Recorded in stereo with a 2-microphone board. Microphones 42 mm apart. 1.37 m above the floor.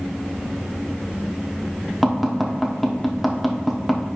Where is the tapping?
5° left (ahead or behind), 1.1 m.